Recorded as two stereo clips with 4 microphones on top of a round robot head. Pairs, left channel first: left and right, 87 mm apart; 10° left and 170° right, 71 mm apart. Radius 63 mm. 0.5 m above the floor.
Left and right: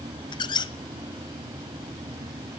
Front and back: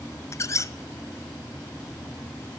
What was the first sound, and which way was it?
A squeak, 55° left.